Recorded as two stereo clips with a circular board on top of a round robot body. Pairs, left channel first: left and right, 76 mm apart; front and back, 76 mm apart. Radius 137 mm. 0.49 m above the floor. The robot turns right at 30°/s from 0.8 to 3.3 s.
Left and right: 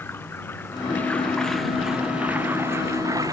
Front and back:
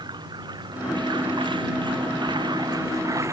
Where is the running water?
155° left; by 3.3 s 130° right.